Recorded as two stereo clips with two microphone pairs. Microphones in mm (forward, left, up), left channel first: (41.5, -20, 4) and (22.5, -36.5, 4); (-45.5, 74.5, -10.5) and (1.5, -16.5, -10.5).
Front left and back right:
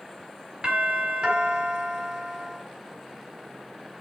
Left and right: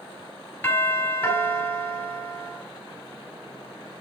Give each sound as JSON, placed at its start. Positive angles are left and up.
{"t": 0.6, "sound": "a doorbell", "azimuth_deg": -170, "distance_m": 4.5}